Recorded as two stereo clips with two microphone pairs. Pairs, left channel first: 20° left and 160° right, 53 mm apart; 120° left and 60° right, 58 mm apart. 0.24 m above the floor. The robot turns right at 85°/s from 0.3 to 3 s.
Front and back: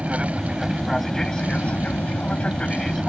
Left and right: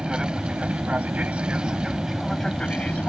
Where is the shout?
No shout in this recording.